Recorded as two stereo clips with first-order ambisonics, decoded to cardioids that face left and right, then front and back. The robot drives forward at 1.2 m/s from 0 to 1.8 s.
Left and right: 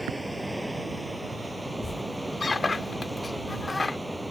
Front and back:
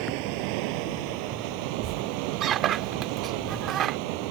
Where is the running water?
Straight behind.